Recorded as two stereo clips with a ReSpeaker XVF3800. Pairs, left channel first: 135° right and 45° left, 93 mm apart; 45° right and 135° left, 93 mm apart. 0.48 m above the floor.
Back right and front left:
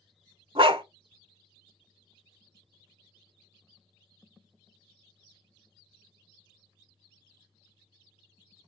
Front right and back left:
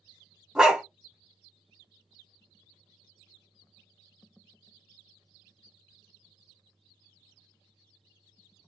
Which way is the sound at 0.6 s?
50° left.